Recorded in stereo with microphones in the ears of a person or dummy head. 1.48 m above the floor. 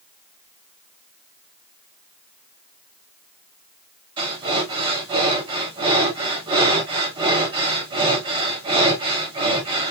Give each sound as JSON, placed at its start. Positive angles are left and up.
{"t": 4.2, "sound": "breathing", "side_deg": -30, "distance_m": 1.2}